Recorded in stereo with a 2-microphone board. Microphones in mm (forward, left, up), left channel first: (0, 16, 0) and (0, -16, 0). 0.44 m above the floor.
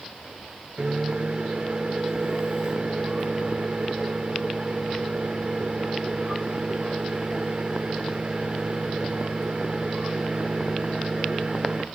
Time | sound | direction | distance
0.8 | a microwave | 35° right (ahead or behind) | 1.2 m